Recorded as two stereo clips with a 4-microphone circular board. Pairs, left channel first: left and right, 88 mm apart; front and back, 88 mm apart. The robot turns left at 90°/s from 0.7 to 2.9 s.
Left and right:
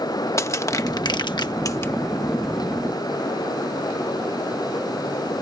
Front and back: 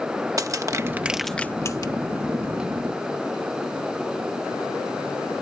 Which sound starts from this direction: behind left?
Crushing, at 0.4 s.